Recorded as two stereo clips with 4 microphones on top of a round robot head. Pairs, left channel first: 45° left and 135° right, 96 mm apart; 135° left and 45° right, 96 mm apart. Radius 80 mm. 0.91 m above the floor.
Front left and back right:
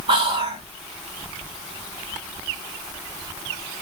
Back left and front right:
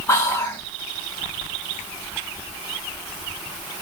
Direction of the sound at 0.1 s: 165° right.